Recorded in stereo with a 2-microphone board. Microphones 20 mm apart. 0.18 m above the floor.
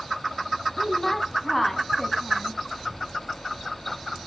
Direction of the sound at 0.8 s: 10° left (ahead or behind).